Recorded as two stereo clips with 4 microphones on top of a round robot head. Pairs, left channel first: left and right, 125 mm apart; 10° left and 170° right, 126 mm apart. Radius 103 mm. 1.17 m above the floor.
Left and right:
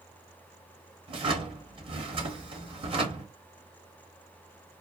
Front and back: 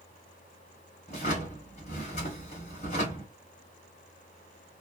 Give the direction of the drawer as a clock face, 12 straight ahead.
2 o'clock.